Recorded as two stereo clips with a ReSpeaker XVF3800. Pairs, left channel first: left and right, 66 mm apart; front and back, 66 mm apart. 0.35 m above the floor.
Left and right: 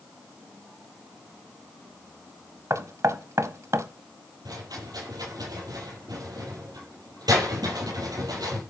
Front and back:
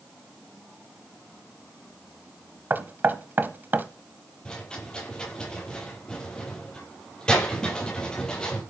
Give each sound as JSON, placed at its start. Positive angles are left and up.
{"t": 2.7, "sound": "knocking", "azimuth_deg": -125, "distance_m": 1.1}
{"t": 4.5, "sound": "a rattle", "azimuth_deg": -75, "distance_m": 10.0}